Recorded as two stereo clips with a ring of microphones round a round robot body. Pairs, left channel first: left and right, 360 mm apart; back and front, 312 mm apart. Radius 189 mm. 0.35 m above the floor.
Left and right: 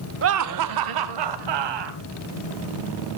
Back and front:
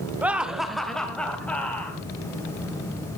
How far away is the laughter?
About 0.9 m.